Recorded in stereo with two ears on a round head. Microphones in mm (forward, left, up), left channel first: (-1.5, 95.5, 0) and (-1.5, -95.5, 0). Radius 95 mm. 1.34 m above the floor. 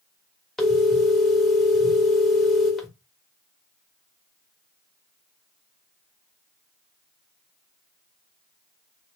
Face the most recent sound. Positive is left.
turn(degrees=0)  # may be behind; listen again after turning